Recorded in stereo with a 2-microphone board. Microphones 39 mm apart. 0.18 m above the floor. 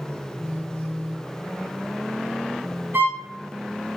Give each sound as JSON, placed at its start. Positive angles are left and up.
{"t": 0.4, "sound": "a phone buzzing", "side_deg": 35, "distance_m": 1.8}
{"t": 2.9, "sound": "a violin", "side_deg": -75, "distance_m": 1.6}